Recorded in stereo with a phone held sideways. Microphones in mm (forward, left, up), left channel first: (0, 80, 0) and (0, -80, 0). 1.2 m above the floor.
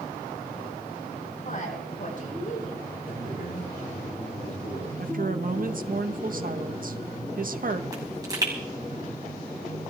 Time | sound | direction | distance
1.4 | a woman speaking | 60° left (ahead or behind) | 8.5 m
3.0 | a man speaking | 65° left (ahead or behind) | 8 m
5.0 | a woman speaking | 60° right (ahead or behind) | 1.2 m
7.9 | a pop | 25° right (ahead or behind) | 5.5 m